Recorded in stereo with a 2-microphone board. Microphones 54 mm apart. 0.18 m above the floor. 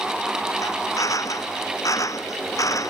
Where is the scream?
No scream in this recording.